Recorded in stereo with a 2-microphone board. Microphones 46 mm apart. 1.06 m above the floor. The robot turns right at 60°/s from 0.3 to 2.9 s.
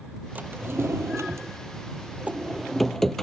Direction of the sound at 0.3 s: 145° right.